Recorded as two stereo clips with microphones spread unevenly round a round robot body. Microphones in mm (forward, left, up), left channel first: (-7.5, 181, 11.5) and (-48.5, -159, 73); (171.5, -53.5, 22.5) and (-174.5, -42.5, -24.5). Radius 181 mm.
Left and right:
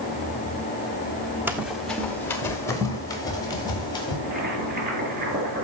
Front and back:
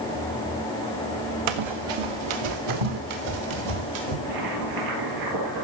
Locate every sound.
1.5 s running footsteps: straight behind, 1.3 m; by 4.1 s 160° left, 5 m
4.2 s boiling: 160° right, 5.5 m